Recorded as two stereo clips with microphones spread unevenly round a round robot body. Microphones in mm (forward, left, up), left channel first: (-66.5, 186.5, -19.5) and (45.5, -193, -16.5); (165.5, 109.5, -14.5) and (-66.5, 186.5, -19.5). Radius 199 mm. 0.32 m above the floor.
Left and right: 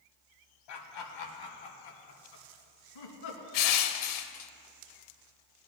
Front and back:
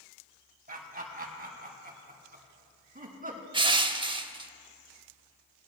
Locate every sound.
0.7 s laughter: 115° left, 1.8 m; by 3.4 s 105° left, 3 m
3.5 s crushing: 95° left, 0.6 m